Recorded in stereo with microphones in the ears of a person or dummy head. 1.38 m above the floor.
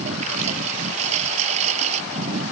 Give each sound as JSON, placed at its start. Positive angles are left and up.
{"t": 0.0, "sound": "a lawn mower", "side_deg": -40}